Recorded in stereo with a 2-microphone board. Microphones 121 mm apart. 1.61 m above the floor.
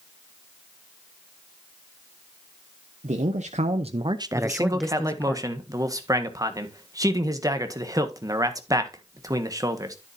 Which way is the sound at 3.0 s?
80° right.